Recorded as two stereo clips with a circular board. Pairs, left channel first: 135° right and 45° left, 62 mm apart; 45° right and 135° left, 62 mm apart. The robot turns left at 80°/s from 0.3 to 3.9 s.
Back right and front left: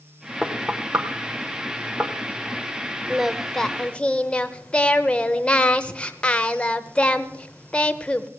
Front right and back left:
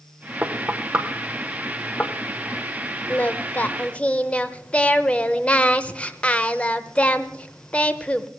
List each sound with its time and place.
0.4 s knocking: 130° left, 1.1 m; by 2.1 s 5° right, 1.1 m
3.1 s singing: 25° right, 0.6 m; by 8.3 s 90° right, 0.6 m